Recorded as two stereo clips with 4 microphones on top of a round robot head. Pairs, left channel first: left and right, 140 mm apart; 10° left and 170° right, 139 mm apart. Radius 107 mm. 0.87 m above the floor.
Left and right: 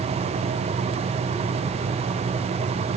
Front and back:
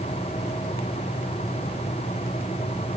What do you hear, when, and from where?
Only background noise.